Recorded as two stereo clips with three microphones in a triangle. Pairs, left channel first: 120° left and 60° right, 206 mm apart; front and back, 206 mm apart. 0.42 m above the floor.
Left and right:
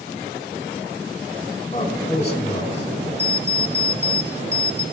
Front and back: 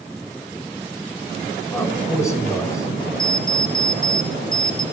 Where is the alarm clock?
40° right, 1.2 m.